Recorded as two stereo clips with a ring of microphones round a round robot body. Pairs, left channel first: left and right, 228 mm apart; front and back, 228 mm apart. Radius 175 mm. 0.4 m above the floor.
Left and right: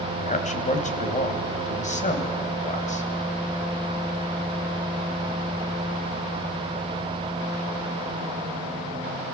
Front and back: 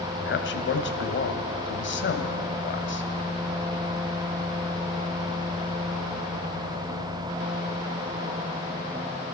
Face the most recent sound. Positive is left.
turn(degrees=35)